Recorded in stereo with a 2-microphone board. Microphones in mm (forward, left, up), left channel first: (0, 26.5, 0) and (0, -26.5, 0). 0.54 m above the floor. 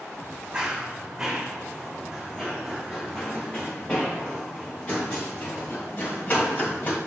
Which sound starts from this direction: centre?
Running footsteps, at 0.5 s.